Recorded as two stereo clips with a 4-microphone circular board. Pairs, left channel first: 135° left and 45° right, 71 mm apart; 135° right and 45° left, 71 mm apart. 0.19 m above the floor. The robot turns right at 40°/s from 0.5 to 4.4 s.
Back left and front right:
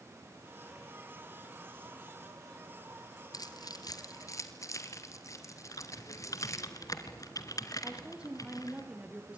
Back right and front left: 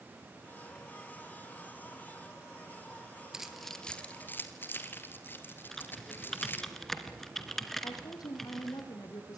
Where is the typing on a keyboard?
140° left, 2.5 m.